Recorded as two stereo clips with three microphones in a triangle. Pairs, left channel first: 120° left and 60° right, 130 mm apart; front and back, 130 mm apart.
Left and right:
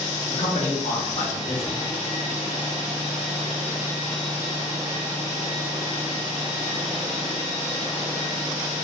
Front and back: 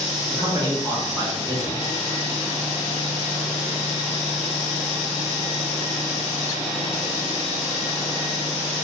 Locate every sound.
0.3 s a man speaking: 120° left, 0.9 m